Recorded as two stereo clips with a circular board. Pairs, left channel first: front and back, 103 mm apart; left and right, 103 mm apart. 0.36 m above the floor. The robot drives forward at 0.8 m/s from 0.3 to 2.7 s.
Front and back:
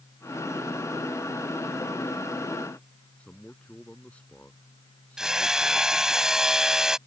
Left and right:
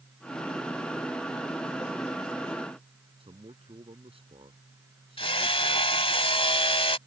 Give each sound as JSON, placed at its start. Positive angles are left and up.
{"t": 3.2, "sound": "a man speaking", "azimuth_deg": -80}
{"t": 5.2, "sound": "hammering", "azimuth_deg": 95}